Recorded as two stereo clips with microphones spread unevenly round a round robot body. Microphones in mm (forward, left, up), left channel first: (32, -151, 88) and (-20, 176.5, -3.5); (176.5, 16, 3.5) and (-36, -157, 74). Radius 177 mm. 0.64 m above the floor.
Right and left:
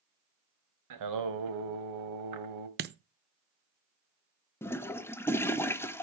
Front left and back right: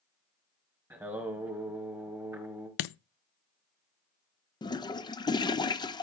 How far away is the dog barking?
No dog barking in this recording.